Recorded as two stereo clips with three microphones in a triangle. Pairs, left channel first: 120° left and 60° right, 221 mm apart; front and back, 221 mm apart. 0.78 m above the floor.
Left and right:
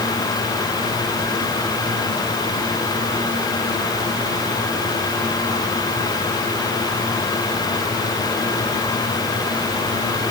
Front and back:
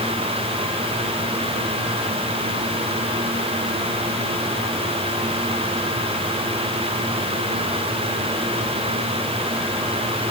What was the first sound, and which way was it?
Only background noise.